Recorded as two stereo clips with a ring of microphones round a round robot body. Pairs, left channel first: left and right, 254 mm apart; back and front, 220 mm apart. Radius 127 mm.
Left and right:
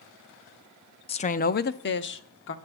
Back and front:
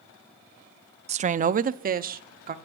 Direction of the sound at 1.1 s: 40° left.